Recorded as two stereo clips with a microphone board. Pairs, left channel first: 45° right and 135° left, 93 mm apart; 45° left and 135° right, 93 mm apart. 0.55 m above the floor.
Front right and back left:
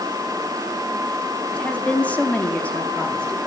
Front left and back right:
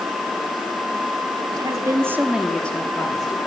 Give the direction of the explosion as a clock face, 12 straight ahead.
No explosion in this recording.